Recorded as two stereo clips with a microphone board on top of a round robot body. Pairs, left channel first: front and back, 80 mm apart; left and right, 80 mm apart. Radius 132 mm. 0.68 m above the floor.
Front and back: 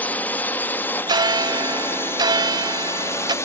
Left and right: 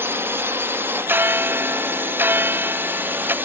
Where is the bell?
155° right.